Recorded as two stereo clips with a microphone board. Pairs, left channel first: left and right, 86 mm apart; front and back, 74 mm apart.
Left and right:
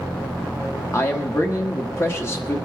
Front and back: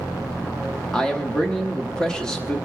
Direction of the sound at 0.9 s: 70° left.